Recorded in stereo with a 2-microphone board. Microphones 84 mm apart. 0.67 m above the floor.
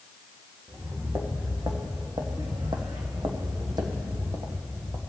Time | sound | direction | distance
0.7 | footsteps | 35° right (ahead or behind) | 1.8 m